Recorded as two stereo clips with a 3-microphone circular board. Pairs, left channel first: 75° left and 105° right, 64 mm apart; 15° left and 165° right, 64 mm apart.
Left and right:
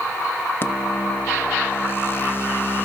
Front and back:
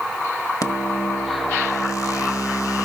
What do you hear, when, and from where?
0.6 s a microwave: 25° left, 1.3 m